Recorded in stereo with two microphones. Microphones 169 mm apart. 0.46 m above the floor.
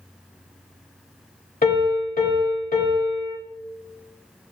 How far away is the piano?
About 1.0 m.